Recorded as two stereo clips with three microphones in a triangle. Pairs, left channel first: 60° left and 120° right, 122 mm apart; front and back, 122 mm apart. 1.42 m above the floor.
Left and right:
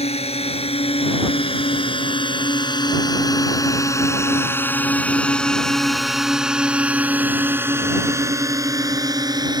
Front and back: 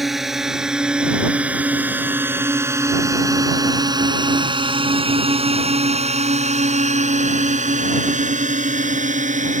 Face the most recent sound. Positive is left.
turn(degrees=-175)